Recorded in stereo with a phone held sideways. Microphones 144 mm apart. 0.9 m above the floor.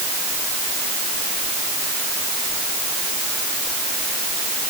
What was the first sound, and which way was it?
Only background noise.